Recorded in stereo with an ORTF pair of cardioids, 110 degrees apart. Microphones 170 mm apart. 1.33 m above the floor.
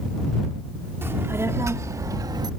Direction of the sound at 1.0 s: 15° right.